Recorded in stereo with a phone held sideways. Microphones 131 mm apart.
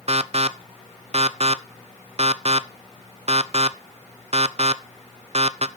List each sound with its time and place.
0.1 s an alarm: 55° right (ahead or behind), 0.5 m